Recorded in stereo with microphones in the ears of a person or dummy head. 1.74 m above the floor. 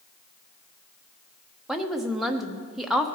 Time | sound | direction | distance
1.7 | a woman speaking | 5° right (ahead or behind) | 0.8 m